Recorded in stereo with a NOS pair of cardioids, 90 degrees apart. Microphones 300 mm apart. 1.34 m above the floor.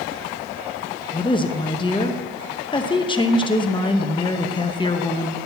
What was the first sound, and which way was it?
A woman speaking, 15° left.